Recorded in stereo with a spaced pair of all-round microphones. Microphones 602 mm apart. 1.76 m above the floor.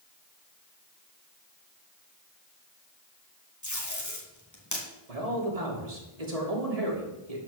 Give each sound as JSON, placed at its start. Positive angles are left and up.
{"t": 3.6, "sound": "tape being pulled", "side_deg": 30, "distance_m": 2.5}
{"t": 5.1, "sound": "a man speaking", "side_deg": -80, "distance_m": 2.5}